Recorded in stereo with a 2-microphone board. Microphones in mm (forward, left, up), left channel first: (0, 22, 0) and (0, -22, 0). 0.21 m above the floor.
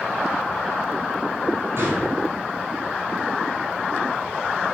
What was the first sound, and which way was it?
A gunshot, 55° right (ahead or behind).